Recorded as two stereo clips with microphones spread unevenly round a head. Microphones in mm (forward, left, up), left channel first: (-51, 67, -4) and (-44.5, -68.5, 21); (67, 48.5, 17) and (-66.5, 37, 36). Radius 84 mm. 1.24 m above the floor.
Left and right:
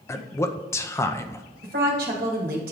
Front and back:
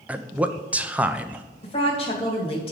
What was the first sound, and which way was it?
A man speaking, 100° left.